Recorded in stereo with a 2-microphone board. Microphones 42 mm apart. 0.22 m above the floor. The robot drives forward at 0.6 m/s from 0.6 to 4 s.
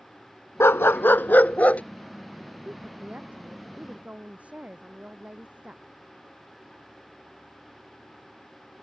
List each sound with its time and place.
0.6 s a dog barking: 75° left (ahead or behind); by 1.8 s 30° left (ahead or behind)
2.6 s a woman speaking: 35° right (ahead or behind); by 5.8 s 30° right (ahead or behind)